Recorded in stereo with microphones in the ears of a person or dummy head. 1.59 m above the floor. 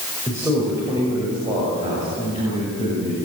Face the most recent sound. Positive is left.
turn(degrees=-30)  # may be behind; listen again after turning